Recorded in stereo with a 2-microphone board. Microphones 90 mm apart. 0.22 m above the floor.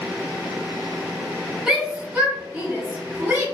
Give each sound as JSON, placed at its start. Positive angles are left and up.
{"t": 1.7, "sound": "a shout", "side_deg": -5, "distance_m": 1.5}